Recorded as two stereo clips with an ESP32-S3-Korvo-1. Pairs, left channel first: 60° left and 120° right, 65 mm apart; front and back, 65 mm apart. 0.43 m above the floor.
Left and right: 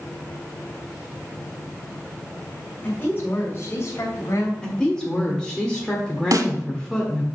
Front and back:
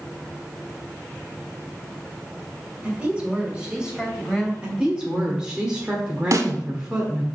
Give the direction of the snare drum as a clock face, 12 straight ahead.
5 o'clock.